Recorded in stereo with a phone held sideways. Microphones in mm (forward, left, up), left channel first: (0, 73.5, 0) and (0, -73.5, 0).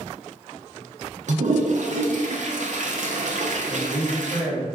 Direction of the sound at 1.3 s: 65° right (ahead or behind).